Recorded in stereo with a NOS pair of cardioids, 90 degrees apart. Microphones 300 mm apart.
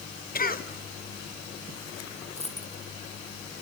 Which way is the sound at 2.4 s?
20° left.